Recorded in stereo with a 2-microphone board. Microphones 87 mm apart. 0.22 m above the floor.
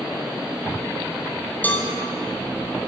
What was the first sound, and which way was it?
A cowbell, 20° left (ahead or behind).